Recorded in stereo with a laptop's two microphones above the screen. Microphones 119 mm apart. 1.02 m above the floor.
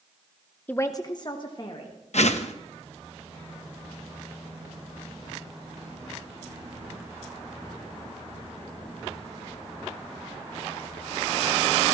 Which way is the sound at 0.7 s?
15° left (ahead or behind).